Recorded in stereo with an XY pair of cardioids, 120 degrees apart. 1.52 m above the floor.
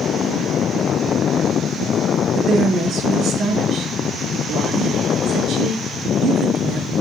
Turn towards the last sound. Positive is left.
turn(degrees=-65)